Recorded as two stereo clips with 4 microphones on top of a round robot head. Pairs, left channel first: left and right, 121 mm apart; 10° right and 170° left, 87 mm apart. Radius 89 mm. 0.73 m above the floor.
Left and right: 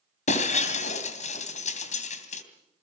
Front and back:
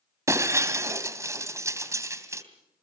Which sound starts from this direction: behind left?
Breaking glass, at 0.3 s.